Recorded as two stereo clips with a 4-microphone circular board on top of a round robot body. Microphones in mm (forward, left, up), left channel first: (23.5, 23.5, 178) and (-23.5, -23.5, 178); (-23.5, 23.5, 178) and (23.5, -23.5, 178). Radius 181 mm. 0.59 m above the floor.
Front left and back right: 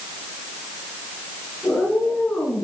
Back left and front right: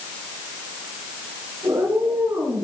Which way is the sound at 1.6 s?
25° right.